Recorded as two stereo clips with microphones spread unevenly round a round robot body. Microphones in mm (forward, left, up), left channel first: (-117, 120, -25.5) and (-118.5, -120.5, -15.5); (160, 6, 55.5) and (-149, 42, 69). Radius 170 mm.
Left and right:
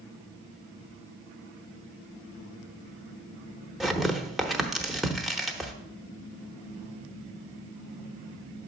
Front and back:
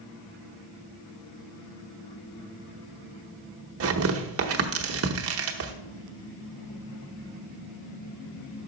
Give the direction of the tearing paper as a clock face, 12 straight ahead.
6 o'clock.